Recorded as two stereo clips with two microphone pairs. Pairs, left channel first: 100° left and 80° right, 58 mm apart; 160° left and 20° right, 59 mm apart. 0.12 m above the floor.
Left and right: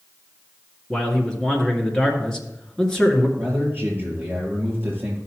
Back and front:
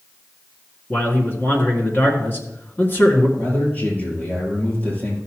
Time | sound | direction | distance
0.9 | a man speaking | 165° left | 1.8 m
3.4 | a man speaking | 135° right | 5.5 m